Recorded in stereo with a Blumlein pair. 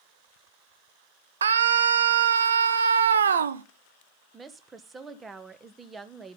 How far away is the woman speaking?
About 1.1 m.